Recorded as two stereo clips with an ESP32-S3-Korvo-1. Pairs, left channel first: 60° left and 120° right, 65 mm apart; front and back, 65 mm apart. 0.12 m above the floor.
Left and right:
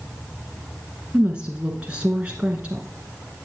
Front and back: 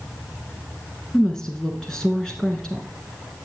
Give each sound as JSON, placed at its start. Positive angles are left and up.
{"t": 1.1, "sound": "a woman speaking", "azimuth_deg": -65, "distance_m": 1.2}